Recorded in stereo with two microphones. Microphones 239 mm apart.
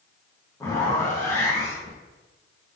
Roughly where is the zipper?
Centre.